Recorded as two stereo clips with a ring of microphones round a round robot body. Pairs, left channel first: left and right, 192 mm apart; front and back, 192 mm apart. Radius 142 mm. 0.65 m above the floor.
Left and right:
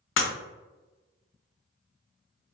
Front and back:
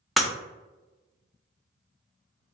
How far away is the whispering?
I don't hear whispering.